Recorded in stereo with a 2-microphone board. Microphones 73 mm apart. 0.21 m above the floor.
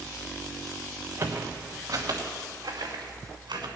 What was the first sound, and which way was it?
Footsteps, 35° right (ahead or behind).